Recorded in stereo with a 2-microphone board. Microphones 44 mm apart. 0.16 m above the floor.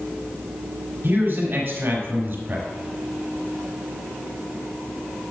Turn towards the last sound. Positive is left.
turn(degrees=-45)  # may be behind; listen again after turning